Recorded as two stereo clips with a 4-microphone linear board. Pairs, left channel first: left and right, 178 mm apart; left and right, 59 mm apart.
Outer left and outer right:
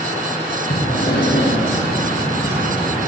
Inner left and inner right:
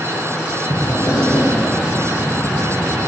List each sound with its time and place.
0.7 s breathing: 70° left (ahead or behind), 6.5 m